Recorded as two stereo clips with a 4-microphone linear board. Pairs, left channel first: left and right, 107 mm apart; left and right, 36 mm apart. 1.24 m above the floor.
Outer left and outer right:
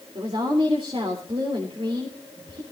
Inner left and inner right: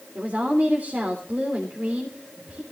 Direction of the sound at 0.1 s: 60° right (ahead or behind).